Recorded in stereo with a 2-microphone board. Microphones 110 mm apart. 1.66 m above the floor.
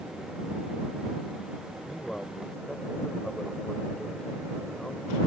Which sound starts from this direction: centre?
A man speaking, at 1.9 s.